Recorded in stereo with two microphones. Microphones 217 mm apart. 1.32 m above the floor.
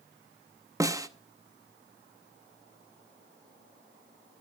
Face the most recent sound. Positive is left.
turn(degrees=-15)  # may be behind; listen again after turning